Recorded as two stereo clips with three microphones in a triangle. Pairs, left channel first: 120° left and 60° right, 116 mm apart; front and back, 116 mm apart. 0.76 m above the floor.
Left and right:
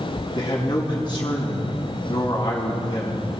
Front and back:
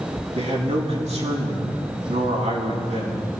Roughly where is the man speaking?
Behind.